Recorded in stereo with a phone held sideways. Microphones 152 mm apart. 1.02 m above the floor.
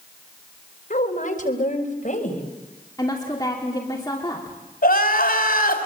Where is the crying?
80° left, 3 m.